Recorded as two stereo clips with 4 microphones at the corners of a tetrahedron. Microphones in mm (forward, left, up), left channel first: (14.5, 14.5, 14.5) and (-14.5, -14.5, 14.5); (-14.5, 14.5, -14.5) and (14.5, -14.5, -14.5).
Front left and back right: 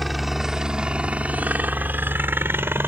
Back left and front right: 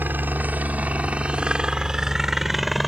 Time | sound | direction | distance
0.0 | a helicopter | 50° right | ?